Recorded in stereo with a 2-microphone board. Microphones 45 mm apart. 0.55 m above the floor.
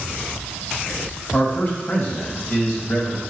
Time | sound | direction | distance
1.3 | a man speaking | 40° left (ahead or behind) | 2.5 m